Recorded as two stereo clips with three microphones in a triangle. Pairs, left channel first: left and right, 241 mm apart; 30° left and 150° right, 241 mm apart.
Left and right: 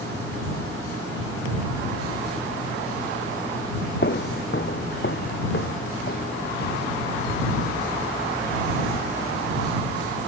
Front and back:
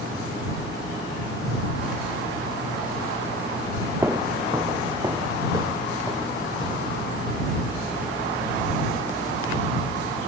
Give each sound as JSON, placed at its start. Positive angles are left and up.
{"t": 4.0, "sound": "footsteps", "azimuth_deg": 130}